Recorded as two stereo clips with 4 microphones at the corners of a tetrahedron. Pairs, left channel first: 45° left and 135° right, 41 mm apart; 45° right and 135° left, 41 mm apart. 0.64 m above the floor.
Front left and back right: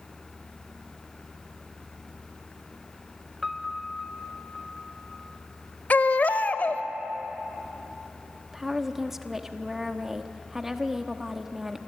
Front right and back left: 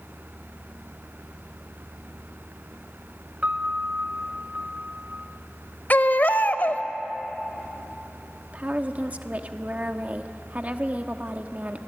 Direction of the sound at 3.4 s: 140° left.